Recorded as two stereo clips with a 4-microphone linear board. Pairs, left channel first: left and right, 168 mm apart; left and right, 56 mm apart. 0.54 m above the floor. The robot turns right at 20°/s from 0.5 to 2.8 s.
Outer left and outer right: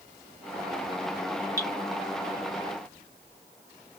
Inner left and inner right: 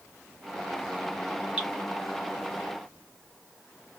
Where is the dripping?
20° right (ahead or behind), 1.4 m.